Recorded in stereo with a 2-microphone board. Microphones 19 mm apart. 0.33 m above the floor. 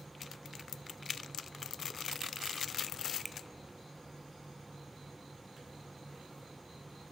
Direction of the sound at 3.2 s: Centre (ahead or behind).